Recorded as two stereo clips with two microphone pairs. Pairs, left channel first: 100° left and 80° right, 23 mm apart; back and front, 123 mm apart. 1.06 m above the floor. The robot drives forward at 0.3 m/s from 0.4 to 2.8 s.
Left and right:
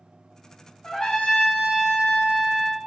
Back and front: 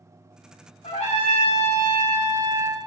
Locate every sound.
0.8 s a trumpet: 145° left, 1.6 m; by 2.8 s 155° left, 2 m